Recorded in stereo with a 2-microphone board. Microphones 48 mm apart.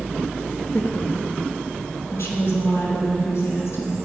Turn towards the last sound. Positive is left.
turn(degrees=70)  # may be behind; listen again after turning